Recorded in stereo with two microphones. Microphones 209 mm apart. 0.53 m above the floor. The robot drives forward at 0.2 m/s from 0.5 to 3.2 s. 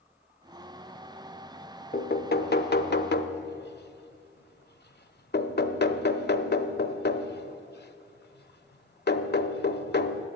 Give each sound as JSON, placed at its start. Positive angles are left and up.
{"t": 1.9, "sound": "knocking", "side_deg": 50, "distance_m": 0.5}